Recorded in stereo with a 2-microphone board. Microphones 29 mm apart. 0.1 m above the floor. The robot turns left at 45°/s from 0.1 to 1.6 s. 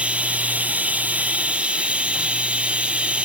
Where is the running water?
55° right, 1.3 m; by 3.3 s 125° right, 1.3 m.